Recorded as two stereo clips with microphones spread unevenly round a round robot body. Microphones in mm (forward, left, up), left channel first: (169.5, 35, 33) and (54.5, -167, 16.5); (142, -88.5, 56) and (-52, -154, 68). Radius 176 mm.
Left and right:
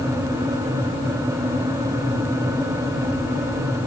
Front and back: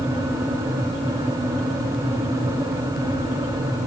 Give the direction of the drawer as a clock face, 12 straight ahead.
No drawer in this recording.